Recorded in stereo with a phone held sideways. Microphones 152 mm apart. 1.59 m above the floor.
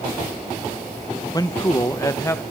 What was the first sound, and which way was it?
A man speaking, 25° left (ahead or behind).